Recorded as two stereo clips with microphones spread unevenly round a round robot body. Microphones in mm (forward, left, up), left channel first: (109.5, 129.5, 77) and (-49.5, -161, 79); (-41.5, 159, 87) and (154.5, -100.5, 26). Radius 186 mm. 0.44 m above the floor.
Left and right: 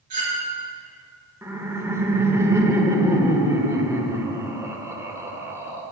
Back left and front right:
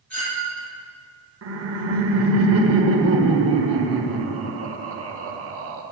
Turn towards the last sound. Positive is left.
turn(degrees=-40)